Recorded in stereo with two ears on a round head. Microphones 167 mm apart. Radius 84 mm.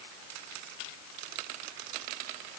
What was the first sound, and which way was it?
Only background noise.